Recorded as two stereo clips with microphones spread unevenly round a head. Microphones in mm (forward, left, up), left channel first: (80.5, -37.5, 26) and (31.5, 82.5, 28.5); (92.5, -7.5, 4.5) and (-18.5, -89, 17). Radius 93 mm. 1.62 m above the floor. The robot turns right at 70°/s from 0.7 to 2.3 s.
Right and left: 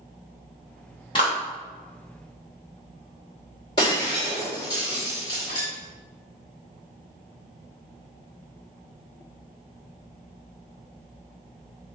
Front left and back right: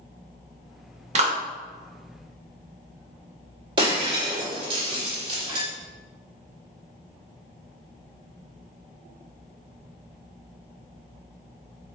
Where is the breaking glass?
125° right, 1.4 m.